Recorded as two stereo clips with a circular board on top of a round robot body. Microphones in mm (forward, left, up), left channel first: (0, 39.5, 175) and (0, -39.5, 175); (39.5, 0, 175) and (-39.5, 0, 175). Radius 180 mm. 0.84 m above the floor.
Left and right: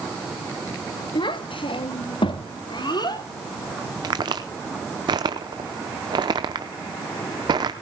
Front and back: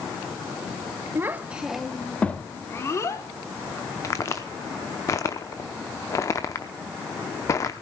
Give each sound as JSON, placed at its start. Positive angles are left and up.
{"t": 1.1, "sound": "a child speaking", "azimuth_deg": 120, "distance_m": 1.6}
{"t": 4.0, "sound": "a crack", "azimuth_deg": -55, "distance_m": 0.5}